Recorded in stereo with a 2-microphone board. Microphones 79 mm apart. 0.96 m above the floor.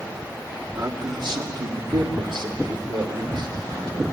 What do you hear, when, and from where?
0.8 s a man speaking: 60° right (ahead or behind), 2.5 m